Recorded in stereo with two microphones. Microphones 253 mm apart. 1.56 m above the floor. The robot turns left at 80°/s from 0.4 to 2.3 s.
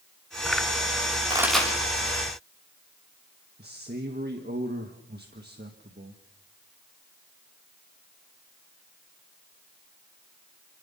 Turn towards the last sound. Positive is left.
turn(degrees=-40)  # may be behind; listen again after turning